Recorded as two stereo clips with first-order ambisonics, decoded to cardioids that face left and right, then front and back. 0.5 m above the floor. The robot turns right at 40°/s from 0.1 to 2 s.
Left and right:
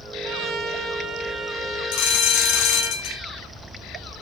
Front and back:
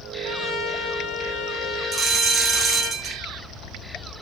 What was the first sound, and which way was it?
A trumpet, 60° right.